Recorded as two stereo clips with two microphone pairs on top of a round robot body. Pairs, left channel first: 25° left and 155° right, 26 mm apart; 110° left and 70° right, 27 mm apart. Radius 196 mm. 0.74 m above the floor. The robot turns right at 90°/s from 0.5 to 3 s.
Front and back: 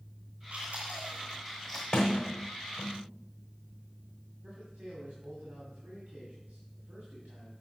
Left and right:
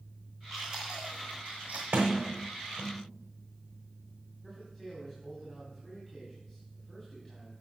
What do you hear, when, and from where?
0.5 s chewing: 175° right, 0.8 m; by 1.8 s 55° right, 0.8 m
1.9 s a sliding door: 55° right, 0.8 m; by 3.0 s 45° left, 0.8 m
4.4 s a man speaking: 155° right, 2.5 m